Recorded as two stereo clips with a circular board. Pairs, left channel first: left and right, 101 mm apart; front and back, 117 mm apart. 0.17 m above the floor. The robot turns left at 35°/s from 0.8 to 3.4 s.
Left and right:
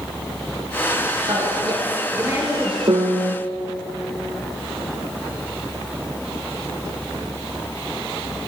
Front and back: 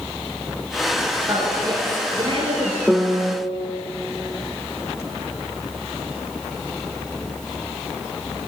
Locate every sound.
1.3 s a woman speaking: 115° right, 3 m; by 2.8 s 165° right, 3 m
2.9 s a piano: 100° right, 1.0 m; by 3.4 s 120° right, 1.0 m